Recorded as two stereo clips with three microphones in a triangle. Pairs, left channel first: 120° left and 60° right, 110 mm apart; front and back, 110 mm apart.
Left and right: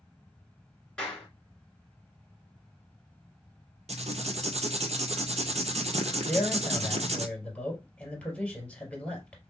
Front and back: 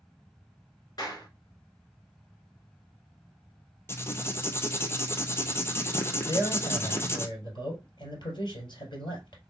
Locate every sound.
1.0 s a clap: 40° left, 2 m
3.9 s writing: 70° right, 0.8 m
6.3 s a man speaking: 40° left, 3 m